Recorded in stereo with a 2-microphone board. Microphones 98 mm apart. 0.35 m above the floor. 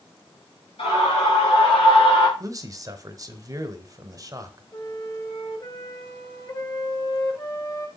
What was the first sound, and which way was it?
A scream, 70° left (ahead or behind).